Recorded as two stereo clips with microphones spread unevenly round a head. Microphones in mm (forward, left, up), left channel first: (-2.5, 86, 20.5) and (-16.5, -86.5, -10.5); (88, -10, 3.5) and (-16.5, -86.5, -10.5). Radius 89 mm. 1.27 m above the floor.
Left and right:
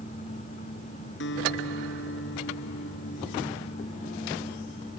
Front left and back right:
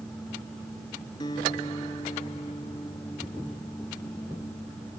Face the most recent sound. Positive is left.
turn(degrees=105)